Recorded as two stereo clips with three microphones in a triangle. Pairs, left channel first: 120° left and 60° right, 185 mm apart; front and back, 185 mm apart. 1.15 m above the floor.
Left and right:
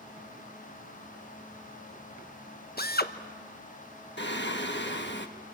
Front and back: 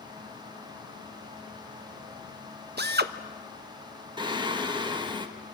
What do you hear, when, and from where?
2.8 s a drill: 155° left, 1.1 m
4.2 s singing: 115° left, 1.6 m